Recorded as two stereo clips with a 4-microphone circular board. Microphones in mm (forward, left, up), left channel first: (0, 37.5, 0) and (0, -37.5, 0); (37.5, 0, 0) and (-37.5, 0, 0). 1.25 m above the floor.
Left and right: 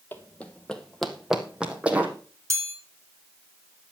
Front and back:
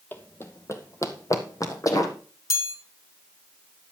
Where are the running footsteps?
45° left, 1.6 m; by 2.1 s 25° right, 2.5 m.